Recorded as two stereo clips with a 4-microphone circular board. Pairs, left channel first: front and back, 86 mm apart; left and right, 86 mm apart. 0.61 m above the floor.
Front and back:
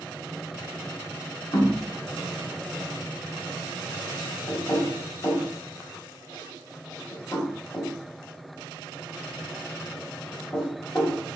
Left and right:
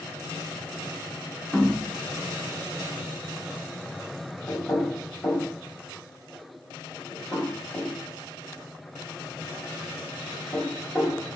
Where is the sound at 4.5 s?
50° left, 2 m.